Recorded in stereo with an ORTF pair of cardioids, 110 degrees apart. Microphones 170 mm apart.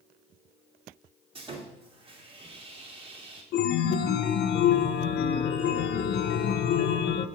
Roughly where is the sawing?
Ahead right.